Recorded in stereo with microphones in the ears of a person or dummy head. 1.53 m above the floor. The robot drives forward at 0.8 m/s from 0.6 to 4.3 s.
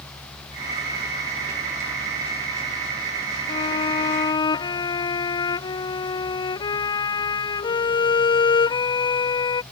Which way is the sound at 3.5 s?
25° left (ahead or behind).